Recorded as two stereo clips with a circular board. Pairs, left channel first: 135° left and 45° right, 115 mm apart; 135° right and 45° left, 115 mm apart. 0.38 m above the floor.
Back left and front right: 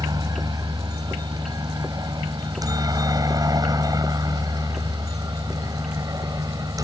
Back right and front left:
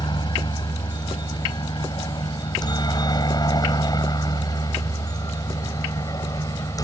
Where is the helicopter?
95° right; by 6.8 s 90° right.